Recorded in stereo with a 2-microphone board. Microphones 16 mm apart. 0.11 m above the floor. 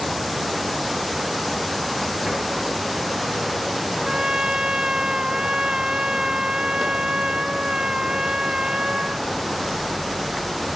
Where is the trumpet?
60° right (ahead or behind).